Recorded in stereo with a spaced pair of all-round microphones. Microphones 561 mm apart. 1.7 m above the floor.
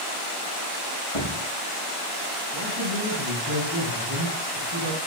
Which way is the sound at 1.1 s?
60° left (ahead or behind).